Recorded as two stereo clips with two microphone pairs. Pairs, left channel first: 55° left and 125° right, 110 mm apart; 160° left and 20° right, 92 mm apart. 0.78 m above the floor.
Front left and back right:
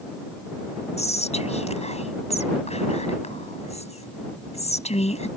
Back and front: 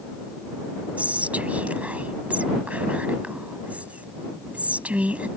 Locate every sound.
1.0 s whispering: 55° left